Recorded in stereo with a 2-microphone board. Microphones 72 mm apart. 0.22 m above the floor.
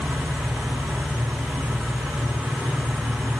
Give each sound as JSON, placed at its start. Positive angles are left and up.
{"t": 0.0, "sound": "an engine running", "side_deg": -5, "distance_m": 8.0}